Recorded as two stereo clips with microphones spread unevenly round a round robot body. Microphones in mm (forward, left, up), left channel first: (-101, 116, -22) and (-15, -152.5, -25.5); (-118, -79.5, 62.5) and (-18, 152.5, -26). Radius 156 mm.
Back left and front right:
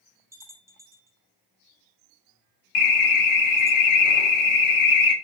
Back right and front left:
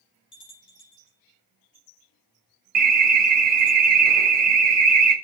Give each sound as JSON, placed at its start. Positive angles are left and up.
{"t": 0.3, "sound": "a bell", "azimuth_deg": -150, "distance_m": 4.5}
{"t": 2.8, "sound": "an alarm", "azimuth_deg": 100, "distance_m": 1.8}